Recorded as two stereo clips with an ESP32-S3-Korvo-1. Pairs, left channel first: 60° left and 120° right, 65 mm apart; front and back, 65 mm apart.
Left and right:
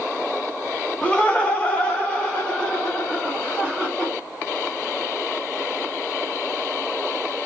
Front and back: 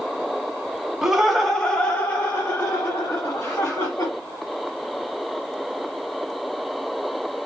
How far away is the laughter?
About 1.0 m.